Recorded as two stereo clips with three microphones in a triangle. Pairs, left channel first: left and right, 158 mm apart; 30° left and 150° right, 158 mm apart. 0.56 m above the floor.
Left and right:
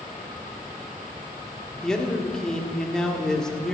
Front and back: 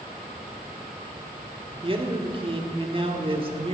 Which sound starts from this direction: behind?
A man speaking, at 1.8 s.